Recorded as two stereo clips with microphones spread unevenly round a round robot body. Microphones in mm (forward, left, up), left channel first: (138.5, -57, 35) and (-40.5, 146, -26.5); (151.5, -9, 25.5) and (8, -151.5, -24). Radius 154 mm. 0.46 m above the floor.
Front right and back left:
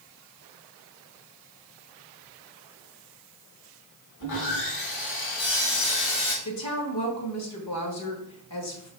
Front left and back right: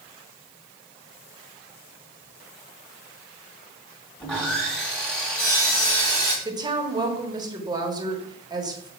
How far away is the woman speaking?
About 1.6 m.